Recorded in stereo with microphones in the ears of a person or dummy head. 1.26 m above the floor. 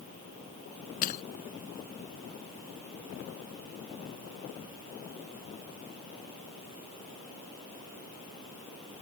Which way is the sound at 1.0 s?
50° left (ahead or behind).